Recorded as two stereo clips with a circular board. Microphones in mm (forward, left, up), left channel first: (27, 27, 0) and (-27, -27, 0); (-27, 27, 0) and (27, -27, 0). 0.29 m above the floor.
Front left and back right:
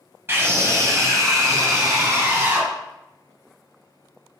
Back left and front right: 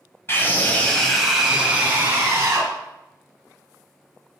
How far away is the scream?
About 1.9 m.